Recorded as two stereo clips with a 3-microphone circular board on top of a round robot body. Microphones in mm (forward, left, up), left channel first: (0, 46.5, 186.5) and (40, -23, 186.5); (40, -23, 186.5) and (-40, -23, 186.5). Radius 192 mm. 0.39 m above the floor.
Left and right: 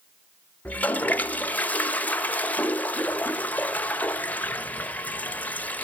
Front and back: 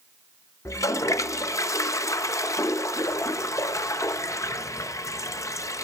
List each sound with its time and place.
0.7 s a toilet flushing: 50° left, 1.1 m